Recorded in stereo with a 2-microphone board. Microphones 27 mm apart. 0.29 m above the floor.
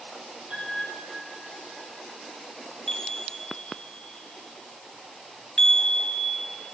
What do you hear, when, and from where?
0.5 s a piano: 40° right (ahead or behind), 4 m
2.9 s a chime: 35° left (ahead or behind), 0.8 m